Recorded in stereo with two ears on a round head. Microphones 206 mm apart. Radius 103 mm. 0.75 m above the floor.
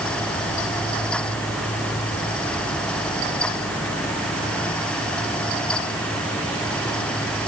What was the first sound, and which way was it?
Only background noise.